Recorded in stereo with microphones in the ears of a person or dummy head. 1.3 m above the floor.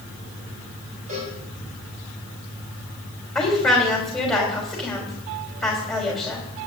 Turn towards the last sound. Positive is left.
turn(degrees=5)  # may be behind; listen again after turning